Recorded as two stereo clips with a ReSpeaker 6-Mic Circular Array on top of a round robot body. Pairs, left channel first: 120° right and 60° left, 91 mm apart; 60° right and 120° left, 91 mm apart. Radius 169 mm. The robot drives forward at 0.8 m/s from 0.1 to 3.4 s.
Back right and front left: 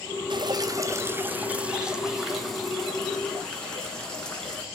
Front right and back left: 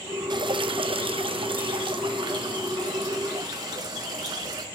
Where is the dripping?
90° left, 1.0 m; by 4.7 s 160° left, 2.5 m.